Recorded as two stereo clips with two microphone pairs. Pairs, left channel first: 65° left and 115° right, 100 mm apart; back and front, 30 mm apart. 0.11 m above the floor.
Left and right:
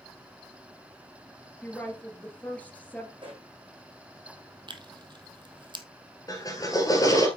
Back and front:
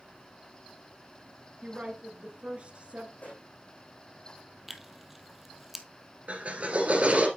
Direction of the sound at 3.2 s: 155° right.